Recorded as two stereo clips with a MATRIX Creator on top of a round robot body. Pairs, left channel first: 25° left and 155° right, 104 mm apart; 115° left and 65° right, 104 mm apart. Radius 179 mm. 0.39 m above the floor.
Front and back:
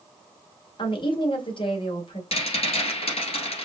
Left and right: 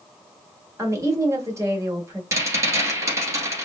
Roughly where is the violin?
I don't hear a violin.